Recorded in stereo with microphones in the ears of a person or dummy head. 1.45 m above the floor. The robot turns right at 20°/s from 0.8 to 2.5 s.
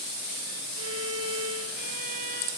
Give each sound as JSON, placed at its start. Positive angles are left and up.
{"t": 0.8, "sound": "a violin", "azimuth_deg": -85, "distance_m": 5.0}